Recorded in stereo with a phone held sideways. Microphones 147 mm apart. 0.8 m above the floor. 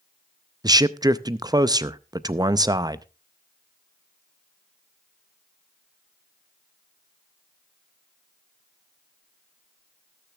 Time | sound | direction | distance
0.6 | a man speaking | 25° right (ahead or behind) | 0.5 m